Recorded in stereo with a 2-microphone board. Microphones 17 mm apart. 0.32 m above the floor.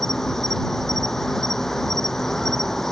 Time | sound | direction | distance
0.0 | an insect | 25° left (ahead or behind) | ?